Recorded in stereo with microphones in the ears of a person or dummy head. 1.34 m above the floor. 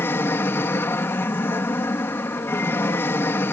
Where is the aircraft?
10° left (ahead or behind).